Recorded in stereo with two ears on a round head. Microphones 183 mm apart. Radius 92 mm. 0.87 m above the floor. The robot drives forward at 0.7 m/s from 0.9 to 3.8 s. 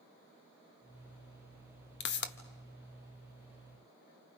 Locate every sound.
2.0 s a pop: 55° left (ahead or behind), 1.1 m